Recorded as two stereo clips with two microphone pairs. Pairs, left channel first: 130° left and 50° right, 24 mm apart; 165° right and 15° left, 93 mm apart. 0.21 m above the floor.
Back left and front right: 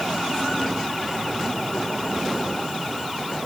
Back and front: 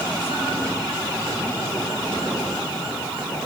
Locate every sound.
Only background noise.